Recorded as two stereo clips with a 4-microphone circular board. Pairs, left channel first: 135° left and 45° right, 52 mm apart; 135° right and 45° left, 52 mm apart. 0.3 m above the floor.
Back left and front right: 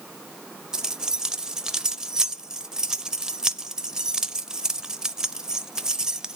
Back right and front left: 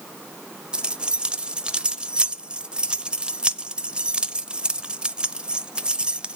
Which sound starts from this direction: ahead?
Keys jangling, at 0.7 s.